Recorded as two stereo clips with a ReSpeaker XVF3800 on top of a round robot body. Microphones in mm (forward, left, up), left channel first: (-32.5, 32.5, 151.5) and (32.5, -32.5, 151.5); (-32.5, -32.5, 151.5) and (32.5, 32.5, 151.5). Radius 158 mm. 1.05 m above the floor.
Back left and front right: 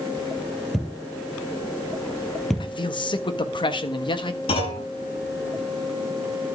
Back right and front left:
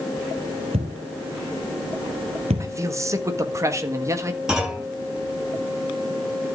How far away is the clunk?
About 8.5 m.